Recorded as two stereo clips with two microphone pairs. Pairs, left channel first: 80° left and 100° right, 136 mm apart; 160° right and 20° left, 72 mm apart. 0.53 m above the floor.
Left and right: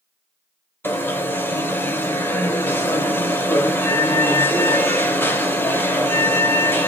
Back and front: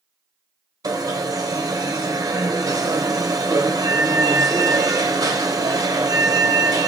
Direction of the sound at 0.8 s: 10° left.